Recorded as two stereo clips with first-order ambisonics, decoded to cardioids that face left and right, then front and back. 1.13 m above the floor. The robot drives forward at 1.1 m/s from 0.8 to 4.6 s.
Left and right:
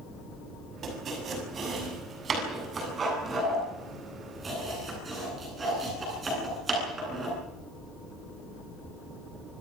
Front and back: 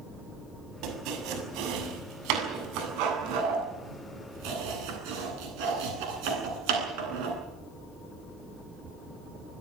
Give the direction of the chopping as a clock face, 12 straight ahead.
5 o'clock.